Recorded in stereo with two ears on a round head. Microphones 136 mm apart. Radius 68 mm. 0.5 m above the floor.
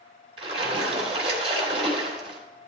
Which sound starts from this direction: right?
A splash, at 0.4 s.